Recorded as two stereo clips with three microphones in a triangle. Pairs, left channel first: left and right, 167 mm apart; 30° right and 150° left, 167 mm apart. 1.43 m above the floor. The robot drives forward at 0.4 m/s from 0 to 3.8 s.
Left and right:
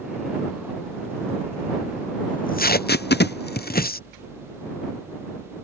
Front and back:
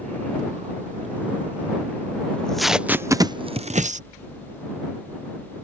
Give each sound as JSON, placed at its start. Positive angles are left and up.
{"t": 2.3, "sound": "tape being pulled", "azimuth_deg": 50}